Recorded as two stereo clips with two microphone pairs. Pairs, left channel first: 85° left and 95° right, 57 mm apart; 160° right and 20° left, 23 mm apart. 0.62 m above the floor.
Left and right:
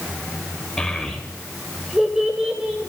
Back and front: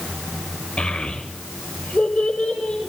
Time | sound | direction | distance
0.8 | a child speaking | 165° left | 2.5 m